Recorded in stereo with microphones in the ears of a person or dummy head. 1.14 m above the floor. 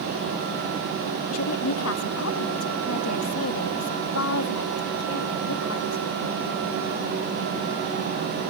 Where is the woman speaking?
75° left (ahead or behind).